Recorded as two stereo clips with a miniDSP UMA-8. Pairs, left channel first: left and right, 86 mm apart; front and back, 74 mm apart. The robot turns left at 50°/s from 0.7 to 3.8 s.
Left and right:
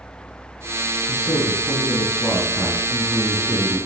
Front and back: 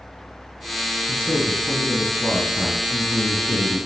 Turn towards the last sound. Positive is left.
turn(degrees=-25)